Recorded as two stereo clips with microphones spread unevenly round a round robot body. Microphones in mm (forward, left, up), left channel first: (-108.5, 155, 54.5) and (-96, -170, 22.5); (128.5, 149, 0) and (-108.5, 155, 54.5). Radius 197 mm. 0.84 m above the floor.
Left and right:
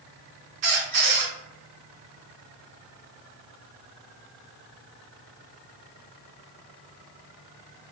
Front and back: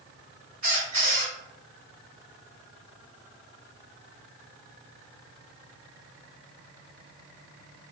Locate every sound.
0.6 s a squeak: 115° right, 1.4 m